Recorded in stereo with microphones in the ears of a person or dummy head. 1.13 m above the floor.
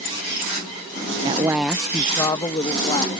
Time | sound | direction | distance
1.2 | a woman speaking | 25° right (ahead or behind) | ?